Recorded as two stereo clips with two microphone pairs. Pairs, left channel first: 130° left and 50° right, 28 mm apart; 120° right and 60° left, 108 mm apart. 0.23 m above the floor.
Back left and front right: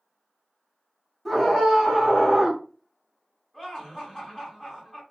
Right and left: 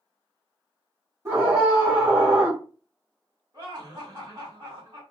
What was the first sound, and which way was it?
A scream, 30° left.